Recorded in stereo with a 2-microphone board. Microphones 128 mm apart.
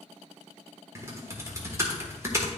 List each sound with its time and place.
0.9 s typing on a keyboard: 25° right (ahead or behind), 1.3 m